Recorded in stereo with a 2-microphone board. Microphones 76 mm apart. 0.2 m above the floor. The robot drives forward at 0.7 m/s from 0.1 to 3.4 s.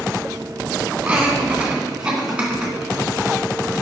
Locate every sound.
1.0 s laughter: 15° right (ahead or behind), 1.9 m; by 2.7 s 10° right (ahead or behind), 2.5 m